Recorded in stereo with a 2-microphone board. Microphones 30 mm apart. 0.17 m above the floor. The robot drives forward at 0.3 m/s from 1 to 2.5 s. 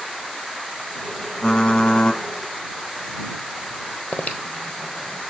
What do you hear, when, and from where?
1.4 s typing on a keyboard: 25° left (ahead or behind), 0.9 m
4.1 s breathing: 45° left (ahead or behind), 1.0 m